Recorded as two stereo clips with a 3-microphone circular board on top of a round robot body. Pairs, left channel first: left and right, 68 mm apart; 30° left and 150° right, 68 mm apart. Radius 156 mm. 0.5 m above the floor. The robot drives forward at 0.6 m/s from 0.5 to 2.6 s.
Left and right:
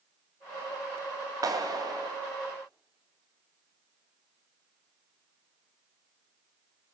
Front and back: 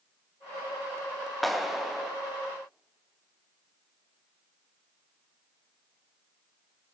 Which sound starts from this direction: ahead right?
A clap, at 1.4 s.